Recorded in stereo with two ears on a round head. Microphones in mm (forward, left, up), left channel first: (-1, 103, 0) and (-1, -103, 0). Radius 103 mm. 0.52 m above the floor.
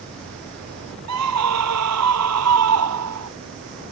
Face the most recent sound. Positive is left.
turn(degrees=-75)  # may be behind; listen again after turning